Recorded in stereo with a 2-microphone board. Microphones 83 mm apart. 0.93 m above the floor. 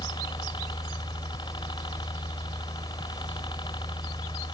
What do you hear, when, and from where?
0.0 s a helicopter: 75° left (ahead or behind)